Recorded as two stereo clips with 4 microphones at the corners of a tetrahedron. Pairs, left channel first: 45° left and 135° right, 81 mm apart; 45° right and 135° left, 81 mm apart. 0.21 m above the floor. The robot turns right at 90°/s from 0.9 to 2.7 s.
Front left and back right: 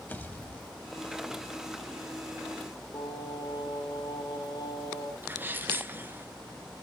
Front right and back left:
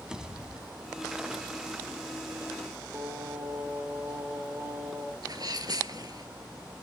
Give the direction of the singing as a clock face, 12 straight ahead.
10 o'clock.